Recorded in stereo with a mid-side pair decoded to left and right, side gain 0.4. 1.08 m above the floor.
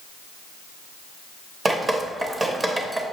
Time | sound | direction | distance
1.6 | dripping | 30° right | 0.8 m